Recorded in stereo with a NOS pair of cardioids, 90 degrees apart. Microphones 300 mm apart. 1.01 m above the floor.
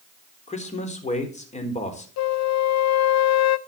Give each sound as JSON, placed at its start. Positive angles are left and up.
{"t": 0.5, "sound": "a man speaking", "azimuth_deg": 25, "distance_m": 3.5}
{"t": 2.2, "sound": "a flute", "azimuth_deg": 65, "distance_m": 0.6}